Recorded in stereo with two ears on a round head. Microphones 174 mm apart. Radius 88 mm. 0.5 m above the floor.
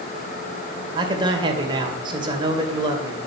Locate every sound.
0.9 s a man speaking: 25° right (ahead or behind), 2 m